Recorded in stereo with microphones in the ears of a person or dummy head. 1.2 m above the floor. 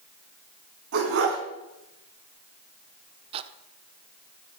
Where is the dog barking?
75° right (ahead or behind), 5 m.